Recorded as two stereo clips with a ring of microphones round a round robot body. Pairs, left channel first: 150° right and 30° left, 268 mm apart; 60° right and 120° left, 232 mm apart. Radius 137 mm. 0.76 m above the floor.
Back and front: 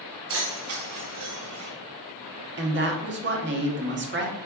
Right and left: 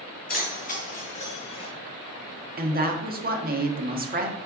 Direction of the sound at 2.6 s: 75° left.